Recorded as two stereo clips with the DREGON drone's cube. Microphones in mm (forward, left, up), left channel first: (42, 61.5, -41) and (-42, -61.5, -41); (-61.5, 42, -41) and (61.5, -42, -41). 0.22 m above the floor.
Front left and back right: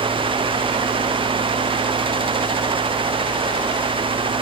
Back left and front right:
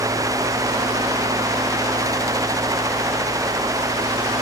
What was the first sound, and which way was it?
Only background noise.